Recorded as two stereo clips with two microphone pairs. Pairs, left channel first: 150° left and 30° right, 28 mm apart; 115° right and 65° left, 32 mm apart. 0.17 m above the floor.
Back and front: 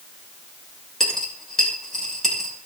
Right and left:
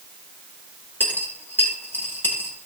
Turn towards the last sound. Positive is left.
turn(degrees=-130)